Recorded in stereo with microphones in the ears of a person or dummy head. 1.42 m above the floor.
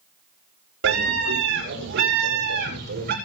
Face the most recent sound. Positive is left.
turn(degrees=-55)  # may be behind; listen again after turning